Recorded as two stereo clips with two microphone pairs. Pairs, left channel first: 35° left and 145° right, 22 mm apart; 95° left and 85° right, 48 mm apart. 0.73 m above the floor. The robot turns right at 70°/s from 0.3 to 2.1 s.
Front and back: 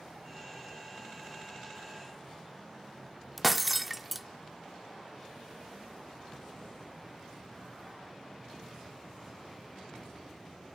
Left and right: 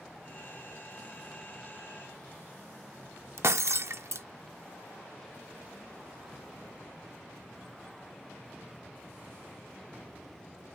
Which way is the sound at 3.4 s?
65° right.